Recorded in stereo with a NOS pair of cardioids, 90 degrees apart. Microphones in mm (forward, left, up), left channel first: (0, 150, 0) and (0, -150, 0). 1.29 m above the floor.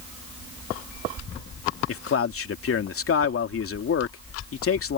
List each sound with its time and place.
1.9 s a man speaking: 45° left